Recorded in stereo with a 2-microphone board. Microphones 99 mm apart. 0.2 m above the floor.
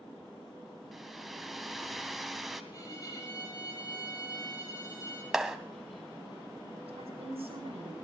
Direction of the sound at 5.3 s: 5° right (ahead or behind).